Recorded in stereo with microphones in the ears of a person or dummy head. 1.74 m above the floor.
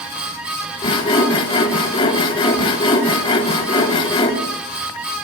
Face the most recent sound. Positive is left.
turn(degrees=25)  # may be behind; listen again after turning